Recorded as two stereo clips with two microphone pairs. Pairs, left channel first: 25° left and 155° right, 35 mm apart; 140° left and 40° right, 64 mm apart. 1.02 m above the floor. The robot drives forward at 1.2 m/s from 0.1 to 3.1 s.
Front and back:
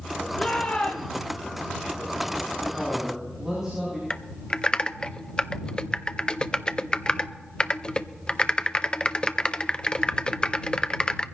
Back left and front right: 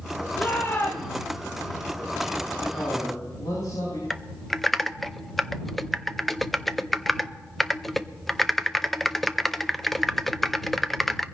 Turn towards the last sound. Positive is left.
turn(degrees=60)